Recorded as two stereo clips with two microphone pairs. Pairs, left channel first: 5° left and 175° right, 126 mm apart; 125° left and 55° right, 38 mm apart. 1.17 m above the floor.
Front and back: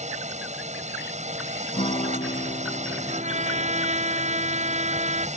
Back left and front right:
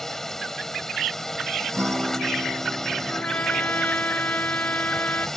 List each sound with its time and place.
0.0 s a drone: 155° right
1.7 s a guitar: 35° right
3.1 s a trumpet: 165° left